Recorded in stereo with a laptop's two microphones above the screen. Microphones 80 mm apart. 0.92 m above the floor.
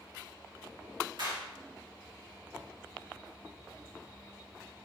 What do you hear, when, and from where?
1.2 s a clap: 75° right (ahead or behind), 2.0 m